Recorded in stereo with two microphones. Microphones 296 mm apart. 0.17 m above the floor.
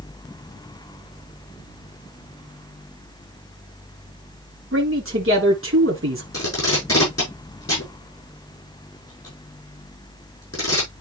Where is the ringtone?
No ringtone in this recording.